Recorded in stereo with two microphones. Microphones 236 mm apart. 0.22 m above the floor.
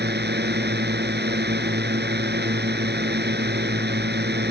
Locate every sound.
0.0 s a drone: 45° right (ahead or behind)